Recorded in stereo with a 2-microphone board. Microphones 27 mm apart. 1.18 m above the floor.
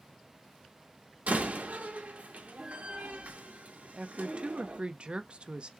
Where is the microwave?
No microwave in this recording.